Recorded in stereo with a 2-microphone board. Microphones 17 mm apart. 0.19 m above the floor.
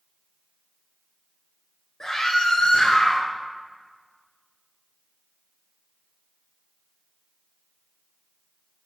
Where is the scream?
45° left (ahead or behind), 2 m; by 3.2 s 70° left (ahead or behind), 3.5 m.